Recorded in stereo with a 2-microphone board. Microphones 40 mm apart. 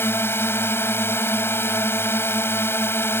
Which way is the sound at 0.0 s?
85° left.